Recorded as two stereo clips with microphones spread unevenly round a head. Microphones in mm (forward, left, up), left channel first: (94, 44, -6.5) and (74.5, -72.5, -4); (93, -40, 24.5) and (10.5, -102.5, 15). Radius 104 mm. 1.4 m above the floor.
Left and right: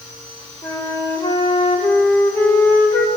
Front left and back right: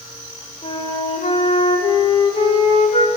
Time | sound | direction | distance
0.6 | a flute | 10° left | 6.5 m